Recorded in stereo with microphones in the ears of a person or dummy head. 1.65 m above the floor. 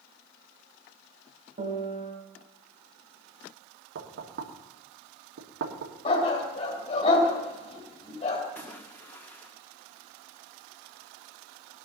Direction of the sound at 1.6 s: 35° right (ahead or behind).